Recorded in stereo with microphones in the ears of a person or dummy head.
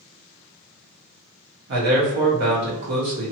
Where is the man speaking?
55° right (ahead or behind), 0.9 m.